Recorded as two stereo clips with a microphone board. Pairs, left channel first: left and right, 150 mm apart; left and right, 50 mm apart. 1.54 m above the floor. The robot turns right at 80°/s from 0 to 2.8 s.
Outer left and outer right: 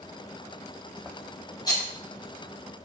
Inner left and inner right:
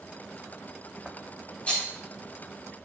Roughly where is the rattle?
Left.